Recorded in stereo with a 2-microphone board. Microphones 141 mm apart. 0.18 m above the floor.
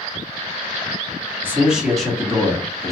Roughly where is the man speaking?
Centre.